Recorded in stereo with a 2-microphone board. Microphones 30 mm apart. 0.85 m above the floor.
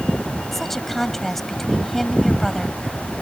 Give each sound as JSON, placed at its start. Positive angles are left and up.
{"t": 0.5, "sound": "a woman speaking", "side_deg": 5}